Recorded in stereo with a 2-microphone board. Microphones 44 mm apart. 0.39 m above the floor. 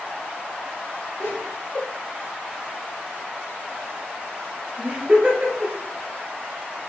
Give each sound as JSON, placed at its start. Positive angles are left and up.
{"t": 1.2, "sound": "laughter", "side_deg": 50, "distance_m": 2.0}